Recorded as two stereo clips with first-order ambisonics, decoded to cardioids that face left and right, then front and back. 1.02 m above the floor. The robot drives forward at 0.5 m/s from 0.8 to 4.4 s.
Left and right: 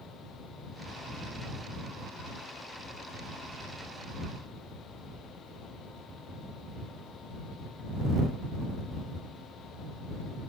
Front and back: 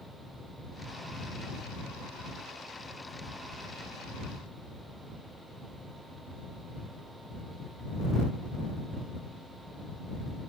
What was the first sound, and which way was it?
Only background noise.